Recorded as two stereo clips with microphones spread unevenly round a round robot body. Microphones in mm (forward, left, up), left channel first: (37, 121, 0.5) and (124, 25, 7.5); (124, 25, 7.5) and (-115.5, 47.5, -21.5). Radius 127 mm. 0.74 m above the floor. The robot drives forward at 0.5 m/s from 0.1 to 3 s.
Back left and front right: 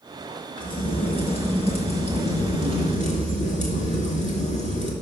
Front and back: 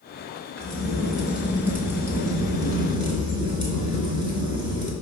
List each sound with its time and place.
0.6 s a crack: 80° left, 3 m; by 4.9 s 100° left, 3.5 m